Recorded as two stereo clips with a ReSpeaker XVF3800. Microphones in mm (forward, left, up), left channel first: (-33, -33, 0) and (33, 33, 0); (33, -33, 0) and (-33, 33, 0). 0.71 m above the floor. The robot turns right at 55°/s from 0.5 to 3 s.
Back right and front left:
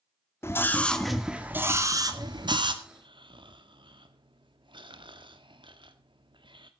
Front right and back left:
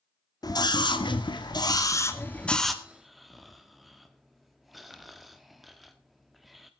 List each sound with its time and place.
0.4 s a scream: 80° right, 1.9 m; by 2.7 s 45° left, 1.9 m
2.8 s snoring: 35° left, 1.3 m; by 6.7 s 45° left, 1.3 m